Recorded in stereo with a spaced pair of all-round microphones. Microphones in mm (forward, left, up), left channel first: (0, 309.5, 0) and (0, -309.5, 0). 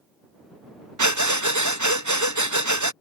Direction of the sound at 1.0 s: 30° right (ahead or behind).